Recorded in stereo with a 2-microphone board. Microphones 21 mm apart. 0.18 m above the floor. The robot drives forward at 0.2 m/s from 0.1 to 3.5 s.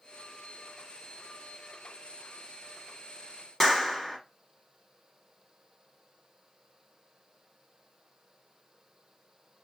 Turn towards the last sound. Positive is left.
turn(degrees=15)  # may be behind; listen again after turning